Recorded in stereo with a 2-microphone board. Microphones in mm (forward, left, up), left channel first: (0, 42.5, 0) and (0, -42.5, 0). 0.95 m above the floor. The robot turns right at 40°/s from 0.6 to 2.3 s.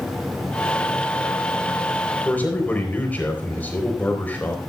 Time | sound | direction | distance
2.2 | a man speaking | 20° left (ahead or behind) | 4 m